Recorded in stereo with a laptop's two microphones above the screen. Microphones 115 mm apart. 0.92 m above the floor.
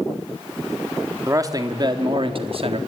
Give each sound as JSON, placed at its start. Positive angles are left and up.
{"t": 1.3, "sound": "a man speaking", "side_deg": -30, "distance_m": 1.6}